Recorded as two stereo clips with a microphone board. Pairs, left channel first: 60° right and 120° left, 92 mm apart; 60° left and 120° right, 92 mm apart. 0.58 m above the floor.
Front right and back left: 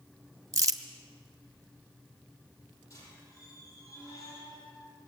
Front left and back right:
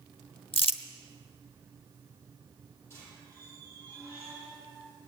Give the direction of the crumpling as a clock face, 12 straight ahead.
10 o'clock.